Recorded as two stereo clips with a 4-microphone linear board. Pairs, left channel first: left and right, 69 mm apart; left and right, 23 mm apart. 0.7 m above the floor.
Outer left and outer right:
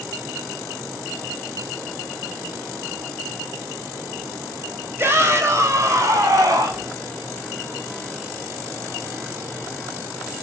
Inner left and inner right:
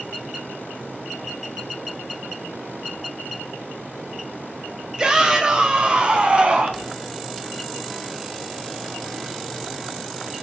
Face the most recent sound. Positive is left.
turn(degrees=-60)  # may be behind; listen again after turning